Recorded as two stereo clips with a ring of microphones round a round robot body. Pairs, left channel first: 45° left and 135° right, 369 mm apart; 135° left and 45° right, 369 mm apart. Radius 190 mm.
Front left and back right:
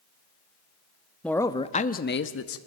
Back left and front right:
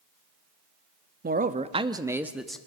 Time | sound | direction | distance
1.2 | a man speaking | 40° right | 1.1 m